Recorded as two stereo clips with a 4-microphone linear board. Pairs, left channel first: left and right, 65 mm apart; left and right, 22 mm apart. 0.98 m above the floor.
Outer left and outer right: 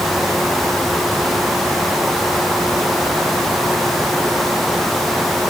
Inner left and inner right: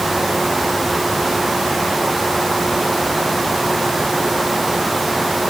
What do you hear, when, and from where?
Only background noise.